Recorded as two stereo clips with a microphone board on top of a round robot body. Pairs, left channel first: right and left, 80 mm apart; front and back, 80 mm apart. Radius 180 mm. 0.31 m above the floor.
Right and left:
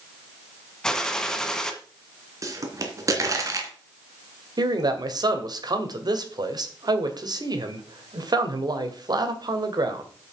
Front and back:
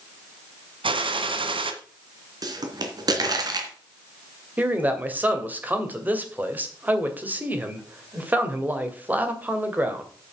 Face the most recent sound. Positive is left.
turn(degrees=115)